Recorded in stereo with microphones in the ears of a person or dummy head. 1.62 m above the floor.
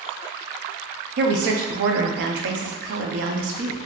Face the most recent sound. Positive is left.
turn(degrees=-60)  # may be behind; listen again after turning